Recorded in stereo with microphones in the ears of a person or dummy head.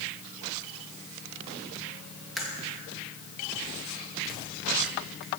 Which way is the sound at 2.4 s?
5° right (ahead or behind).